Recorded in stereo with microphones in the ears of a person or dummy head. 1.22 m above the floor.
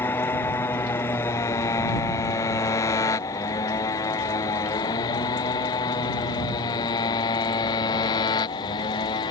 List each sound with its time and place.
0.0 s a motorcycle: 15° left (ahead or behind); by 9.3 s 25° left (ahead or behind)